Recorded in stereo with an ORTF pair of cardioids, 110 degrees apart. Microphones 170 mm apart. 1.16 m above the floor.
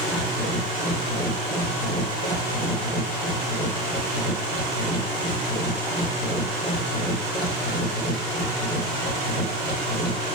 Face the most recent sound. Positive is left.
turn(degrees=50)